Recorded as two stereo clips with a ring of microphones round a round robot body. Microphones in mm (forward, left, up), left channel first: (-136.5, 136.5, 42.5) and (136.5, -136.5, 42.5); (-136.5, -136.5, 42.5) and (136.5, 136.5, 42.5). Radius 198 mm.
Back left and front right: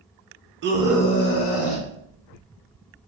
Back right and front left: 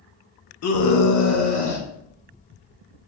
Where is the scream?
95° right, 0.6 m; by 1.9 s 160° left, 0.9 m.